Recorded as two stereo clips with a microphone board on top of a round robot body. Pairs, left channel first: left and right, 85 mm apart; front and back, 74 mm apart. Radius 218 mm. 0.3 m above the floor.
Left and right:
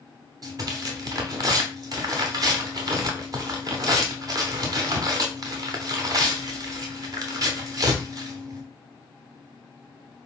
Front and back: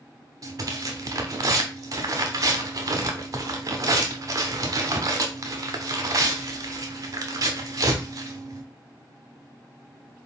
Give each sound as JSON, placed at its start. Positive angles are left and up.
{"t": 0.4, "sound": "tearing paper", "azimuth_deg": -135, "distance_m": 0.6}